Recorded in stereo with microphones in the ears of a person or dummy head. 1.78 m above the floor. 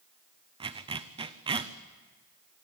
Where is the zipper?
20° right (ahead or behind), 0.8 m.